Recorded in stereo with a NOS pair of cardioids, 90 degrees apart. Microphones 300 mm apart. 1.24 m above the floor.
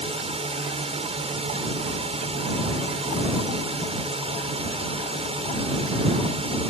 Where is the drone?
20° right.